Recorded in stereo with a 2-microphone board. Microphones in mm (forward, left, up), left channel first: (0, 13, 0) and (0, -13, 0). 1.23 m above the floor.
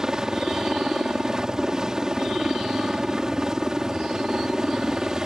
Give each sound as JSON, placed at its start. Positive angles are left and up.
{"t": 0.0, "sound": "a helicopter", "side_deg": -25}